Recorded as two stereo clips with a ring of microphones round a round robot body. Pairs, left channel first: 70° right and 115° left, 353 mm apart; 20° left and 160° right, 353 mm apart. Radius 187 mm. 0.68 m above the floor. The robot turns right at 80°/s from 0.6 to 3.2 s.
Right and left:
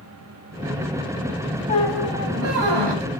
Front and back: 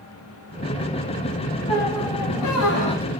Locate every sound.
1.7 s a squeak: straight ahead, 3.5 m; by 3.1 s 110° left, 3.5 m